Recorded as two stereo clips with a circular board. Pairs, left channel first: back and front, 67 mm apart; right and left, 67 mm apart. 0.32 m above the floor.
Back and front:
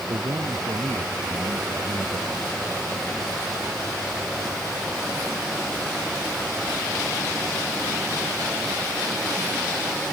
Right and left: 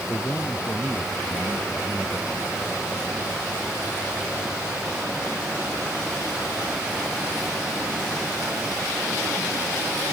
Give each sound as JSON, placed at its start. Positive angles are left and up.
{"t": 0.1, "sound": "a man speaking", "azimuth_deg": -25}